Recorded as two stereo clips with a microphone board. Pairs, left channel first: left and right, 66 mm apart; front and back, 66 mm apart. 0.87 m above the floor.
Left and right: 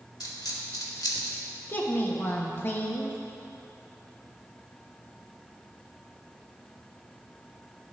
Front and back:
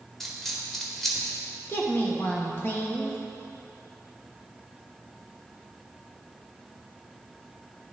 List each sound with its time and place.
0.2 s a dropped coin: 85° left, 1.2 m
1.7 s a woman speaking: 45° left, 1.1 m